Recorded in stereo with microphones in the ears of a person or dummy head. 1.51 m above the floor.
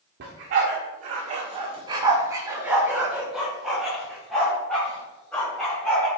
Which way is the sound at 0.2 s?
45° right (ahead or behind).